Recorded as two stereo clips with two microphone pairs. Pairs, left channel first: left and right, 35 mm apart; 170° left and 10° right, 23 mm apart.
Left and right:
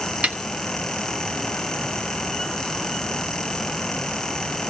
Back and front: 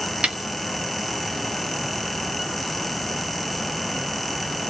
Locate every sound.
0.2 s a snare drum: 45° right, 0.7 m